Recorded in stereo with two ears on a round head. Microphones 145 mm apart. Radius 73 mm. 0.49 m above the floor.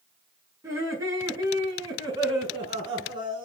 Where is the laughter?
20° right (ahead or behind), 6 m; by 3.5 s 30° right (ahead or behind), 6.5 m.